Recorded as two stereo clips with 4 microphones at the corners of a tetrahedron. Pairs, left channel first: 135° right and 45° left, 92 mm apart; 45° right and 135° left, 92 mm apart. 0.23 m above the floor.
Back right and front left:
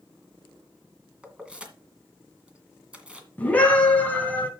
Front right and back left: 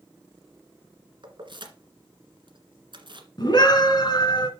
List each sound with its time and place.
1.2 s keys jangling: 125° left, 1.7 m
3.4 s a scream: 65° right, 2.5 m